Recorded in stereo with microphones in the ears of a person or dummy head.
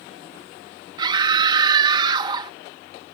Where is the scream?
25° right (ahead or behind).